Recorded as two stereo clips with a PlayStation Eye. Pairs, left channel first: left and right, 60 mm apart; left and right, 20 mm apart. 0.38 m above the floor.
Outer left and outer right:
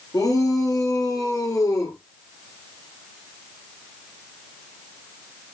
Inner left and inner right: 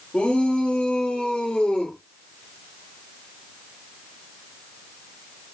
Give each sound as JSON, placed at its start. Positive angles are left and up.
{"t": 0.1, "sound": "a shout", "side_deg": 85, "distance_m": 7.0}